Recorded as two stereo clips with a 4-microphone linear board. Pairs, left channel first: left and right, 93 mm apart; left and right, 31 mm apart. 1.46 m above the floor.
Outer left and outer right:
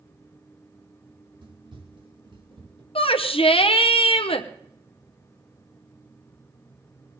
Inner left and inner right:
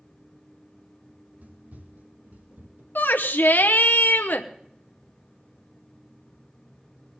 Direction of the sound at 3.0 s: 85° left.